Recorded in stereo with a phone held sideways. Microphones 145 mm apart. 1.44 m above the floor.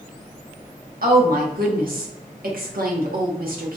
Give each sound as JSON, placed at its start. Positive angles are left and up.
{"t": 1.0, "sound": "a woman speaking", "side_deg": -85, "distance_m": 0.8}